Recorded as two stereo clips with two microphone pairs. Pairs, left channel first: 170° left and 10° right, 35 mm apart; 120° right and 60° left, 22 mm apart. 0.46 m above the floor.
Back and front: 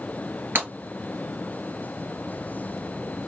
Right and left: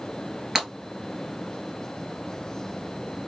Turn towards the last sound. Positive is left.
turn(degrees=-10)